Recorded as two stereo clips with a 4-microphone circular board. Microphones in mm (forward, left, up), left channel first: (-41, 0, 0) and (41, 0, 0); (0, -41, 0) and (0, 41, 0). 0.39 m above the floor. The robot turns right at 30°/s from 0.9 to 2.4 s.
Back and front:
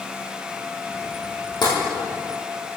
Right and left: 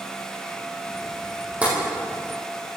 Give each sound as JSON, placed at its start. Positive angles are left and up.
{"t": 1.6, "sound": "tapping", "azimuth_deg": 160, "distance_m": 4.5}